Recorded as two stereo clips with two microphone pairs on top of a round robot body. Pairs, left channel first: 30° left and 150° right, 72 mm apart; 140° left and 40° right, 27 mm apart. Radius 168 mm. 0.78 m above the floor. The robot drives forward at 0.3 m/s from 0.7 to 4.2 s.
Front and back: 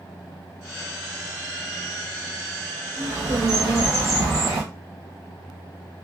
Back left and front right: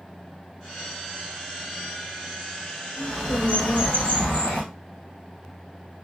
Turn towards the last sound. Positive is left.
turn(degrees=170)